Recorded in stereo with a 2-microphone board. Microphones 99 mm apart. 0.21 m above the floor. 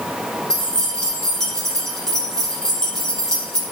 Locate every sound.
0.5 s keys jangling: 5° left (ahead or behind), 5 m